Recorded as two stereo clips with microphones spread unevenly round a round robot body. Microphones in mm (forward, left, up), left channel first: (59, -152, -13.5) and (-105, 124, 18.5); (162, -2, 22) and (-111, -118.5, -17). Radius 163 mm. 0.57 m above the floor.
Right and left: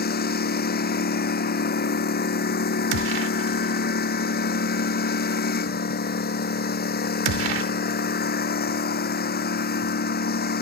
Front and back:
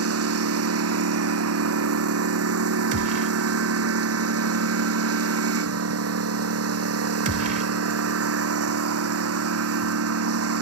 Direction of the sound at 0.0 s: 120° right.